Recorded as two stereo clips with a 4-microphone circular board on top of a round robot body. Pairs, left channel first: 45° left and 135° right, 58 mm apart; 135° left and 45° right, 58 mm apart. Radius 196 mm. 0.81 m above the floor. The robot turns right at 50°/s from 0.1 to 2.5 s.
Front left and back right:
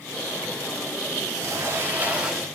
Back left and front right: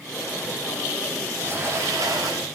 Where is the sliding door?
105° right, 8 m; by 2.5 s 50° right, 8 m.